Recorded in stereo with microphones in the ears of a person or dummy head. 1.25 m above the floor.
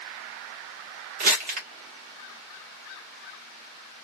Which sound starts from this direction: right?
Crumpling, at 1.2 s.